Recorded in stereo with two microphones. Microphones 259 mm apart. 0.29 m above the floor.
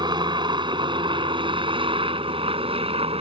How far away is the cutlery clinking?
I don't hear cutlery clinking.